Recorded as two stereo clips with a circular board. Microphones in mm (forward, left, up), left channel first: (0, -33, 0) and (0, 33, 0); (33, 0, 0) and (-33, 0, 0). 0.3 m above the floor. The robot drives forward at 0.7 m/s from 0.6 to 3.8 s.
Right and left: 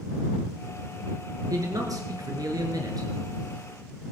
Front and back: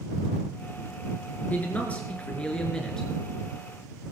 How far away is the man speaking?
About 4.5 m.